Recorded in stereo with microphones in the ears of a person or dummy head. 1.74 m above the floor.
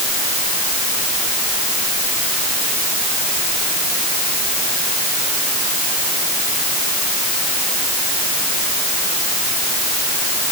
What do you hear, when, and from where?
Only background noise.